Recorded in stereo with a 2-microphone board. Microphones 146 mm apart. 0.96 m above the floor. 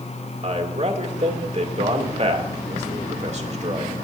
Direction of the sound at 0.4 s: 50° right (ahead or behind).